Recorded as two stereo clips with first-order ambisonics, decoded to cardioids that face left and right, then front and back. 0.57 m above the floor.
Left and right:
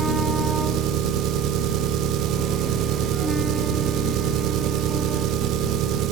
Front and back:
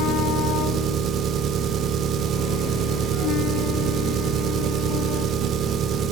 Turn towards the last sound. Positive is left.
turn(degrees=-125)